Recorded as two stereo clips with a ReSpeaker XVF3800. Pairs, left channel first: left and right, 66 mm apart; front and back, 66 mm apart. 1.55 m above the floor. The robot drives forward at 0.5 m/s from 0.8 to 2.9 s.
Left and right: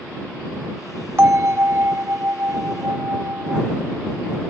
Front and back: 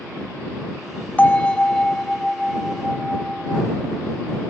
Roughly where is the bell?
Ahead right.